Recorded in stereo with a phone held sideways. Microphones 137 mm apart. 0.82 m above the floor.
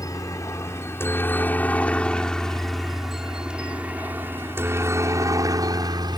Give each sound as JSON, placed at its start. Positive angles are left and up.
{"t": 0.0, "sound": "a helicopter", "side_deg": 25}